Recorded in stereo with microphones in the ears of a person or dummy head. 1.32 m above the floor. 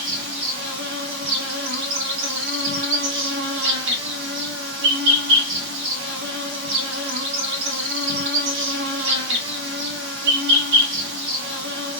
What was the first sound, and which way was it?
An insect, 65° right (ahead or behind).